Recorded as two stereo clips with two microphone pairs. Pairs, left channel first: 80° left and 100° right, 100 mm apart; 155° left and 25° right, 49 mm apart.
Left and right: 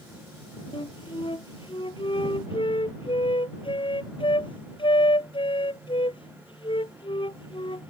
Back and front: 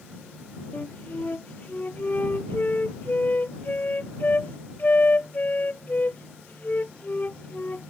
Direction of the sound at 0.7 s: 110° left.